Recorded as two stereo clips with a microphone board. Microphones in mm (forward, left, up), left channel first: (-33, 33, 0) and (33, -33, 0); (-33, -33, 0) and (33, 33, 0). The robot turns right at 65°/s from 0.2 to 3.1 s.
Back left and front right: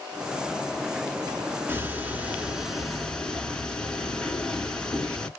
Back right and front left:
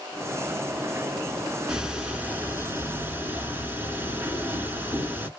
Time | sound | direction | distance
1.7 | ticking | 30° right | 0.9 m